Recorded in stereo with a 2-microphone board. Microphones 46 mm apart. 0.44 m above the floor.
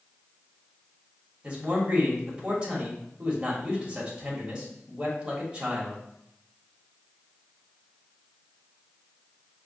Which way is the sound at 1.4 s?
25° right (ahead or behind).